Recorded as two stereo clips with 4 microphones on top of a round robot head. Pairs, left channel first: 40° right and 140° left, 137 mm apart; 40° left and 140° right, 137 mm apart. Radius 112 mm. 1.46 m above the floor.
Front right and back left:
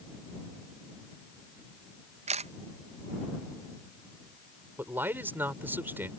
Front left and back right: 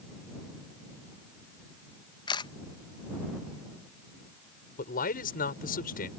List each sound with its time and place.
2.3 s a camera shutter: 100° left
4.8 s a man speaking: 65° left